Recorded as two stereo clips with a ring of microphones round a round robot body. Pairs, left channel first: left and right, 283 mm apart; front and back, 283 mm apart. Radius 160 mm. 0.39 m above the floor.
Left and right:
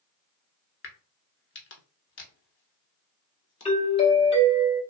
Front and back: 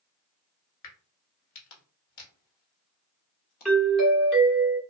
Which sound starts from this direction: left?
A doorbell, at 3.6 s.